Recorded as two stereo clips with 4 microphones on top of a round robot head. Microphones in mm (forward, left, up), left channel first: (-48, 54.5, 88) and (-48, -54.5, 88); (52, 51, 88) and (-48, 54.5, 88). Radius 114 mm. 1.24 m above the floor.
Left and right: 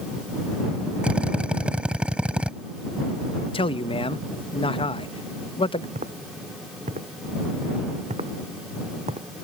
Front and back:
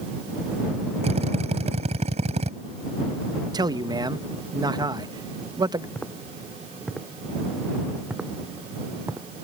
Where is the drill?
170° right.